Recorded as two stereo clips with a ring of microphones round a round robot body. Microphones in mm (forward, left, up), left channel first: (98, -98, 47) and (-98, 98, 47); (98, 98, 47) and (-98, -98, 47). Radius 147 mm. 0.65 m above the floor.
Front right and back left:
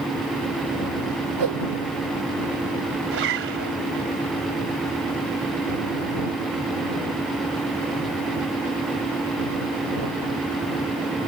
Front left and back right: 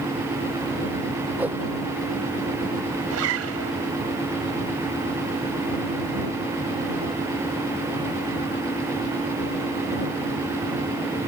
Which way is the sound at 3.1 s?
175° right.